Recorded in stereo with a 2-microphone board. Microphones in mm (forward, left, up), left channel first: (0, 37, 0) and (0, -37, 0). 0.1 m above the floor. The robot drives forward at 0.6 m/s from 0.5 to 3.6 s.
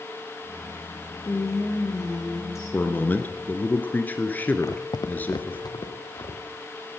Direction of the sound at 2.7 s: 25° left (ahead or behind).